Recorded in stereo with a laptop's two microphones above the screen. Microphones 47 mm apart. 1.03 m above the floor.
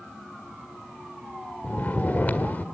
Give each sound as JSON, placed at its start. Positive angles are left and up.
{"t": 1.6, "sound": "snoring", "side_deg": 40, "distance_m": 1.4}